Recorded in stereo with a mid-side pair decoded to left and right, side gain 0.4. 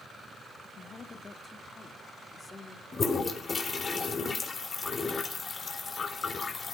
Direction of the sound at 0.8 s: 50° left.